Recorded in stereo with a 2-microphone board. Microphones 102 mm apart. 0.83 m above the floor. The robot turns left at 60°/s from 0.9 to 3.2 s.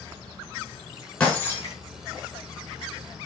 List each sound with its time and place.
1.2 s breaking glass: 170° left, 4.5 m; by 1.8 s 140° left, 4.5 m